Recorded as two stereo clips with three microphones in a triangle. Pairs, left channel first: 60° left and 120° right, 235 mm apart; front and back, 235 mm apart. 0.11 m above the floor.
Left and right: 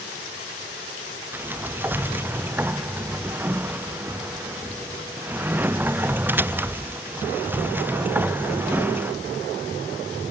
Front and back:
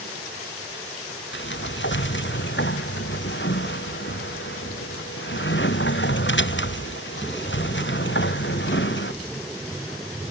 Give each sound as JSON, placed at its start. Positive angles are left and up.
{"t": 1.3, "sound": "a sliding door", "azimuth_deg": -40}